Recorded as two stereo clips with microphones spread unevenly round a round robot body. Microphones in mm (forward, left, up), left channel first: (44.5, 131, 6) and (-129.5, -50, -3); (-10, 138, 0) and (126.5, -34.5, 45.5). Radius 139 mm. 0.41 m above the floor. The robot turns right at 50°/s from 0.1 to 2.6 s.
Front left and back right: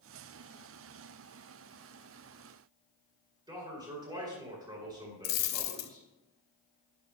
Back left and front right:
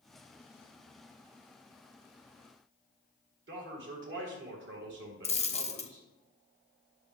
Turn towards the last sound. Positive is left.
turn(degrees=65)